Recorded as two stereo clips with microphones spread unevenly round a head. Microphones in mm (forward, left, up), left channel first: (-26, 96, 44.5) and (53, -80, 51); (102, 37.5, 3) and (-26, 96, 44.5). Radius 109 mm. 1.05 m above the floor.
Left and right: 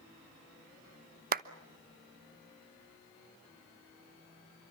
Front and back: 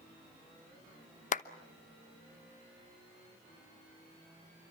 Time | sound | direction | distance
1.3 | a clap | 25° right | 1.0 m